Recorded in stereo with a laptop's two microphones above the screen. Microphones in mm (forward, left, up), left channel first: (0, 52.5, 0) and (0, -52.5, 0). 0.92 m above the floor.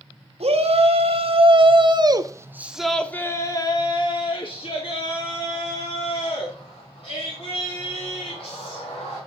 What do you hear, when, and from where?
0.4 s a shout: 70° right (ahead or behind), 1.6 m; by 9.2 s 75° left (ahead or behind), 4 m